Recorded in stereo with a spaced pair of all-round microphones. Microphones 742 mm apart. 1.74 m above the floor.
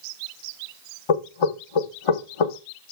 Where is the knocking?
45° left (ahead or behind), 0.6 m.